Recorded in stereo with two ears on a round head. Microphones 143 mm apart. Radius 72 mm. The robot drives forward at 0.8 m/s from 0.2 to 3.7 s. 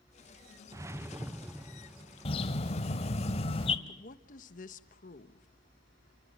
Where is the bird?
35° left (ahead or behind), 1.3 m.